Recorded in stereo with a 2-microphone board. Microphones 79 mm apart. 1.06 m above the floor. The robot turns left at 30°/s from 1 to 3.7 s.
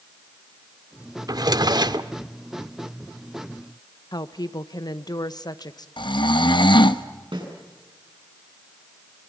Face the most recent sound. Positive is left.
turn(degrees=-85)